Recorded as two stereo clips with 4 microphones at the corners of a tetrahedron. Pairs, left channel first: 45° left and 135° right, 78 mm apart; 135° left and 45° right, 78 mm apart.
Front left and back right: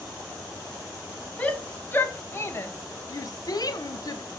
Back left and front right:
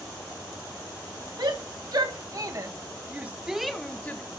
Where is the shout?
25° right, 1.8 m; by 4.2 s 75° left, 0.9 m.